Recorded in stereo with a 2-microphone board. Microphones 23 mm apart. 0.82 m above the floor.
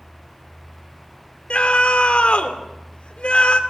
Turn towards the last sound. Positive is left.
turn(degrees=60)  # may be behind; listen again after turning